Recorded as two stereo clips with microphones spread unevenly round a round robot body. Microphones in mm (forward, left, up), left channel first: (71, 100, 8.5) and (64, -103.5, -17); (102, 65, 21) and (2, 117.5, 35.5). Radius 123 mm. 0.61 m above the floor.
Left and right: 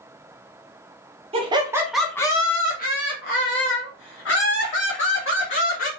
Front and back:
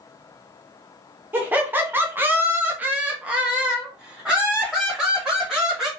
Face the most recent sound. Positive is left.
turn(degrees=65)